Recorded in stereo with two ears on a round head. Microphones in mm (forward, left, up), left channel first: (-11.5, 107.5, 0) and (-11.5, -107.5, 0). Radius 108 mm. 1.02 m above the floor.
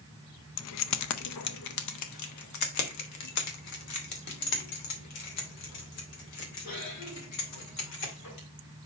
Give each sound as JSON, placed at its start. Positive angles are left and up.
{"t": 0.6, "sound": "keys jangling", "side_deg": 60, "distance_m": 0.5}